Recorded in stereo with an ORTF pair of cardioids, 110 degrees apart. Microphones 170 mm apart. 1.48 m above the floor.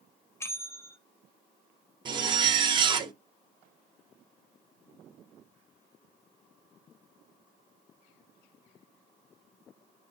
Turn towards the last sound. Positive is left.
turn(degrees=-30)